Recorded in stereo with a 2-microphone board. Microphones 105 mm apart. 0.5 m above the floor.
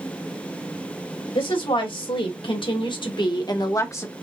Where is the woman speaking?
65° left (ahead or behind), 2.5 m; by 4.1 s 20° left (ahead or behind), 1.1 m.